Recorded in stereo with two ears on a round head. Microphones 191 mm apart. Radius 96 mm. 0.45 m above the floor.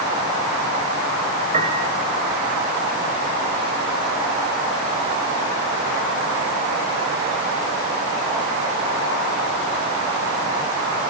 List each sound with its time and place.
1.5 s a piano: 30° right (ahead or behind), 2.5 m